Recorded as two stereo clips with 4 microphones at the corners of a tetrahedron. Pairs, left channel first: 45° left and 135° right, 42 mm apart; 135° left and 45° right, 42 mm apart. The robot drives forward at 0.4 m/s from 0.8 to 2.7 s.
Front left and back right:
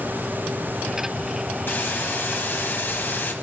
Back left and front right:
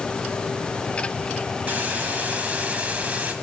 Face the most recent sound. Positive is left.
turn(degrees=10)